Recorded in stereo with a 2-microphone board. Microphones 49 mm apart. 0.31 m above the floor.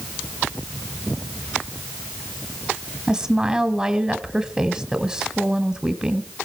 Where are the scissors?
No scissors in this recording.